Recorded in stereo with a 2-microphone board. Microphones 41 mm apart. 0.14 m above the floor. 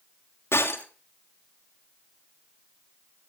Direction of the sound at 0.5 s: 80° left.